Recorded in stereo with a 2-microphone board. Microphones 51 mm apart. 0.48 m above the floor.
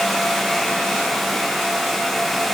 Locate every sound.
Only background noise.